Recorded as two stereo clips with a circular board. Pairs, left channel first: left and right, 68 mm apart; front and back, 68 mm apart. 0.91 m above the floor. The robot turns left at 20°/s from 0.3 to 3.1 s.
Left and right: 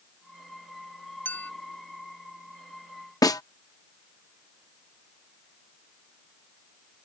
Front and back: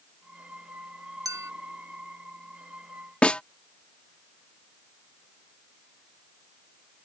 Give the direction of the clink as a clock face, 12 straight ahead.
7 o'clock.